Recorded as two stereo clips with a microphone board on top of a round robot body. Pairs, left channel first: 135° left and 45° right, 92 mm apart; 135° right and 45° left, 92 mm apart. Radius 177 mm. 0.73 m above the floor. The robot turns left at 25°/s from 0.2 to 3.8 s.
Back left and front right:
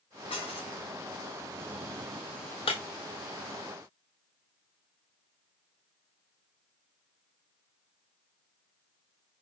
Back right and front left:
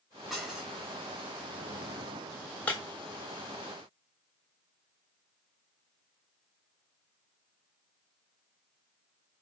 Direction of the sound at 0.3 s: 135° left.